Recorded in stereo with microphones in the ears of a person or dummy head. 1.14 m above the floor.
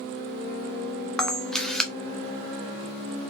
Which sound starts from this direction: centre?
A camera shutter, at 1.2 s.